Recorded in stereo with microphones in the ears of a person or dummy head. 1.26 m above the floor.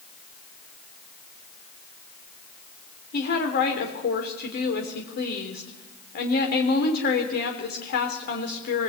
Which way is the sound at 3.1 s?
55° left (ahead or behind).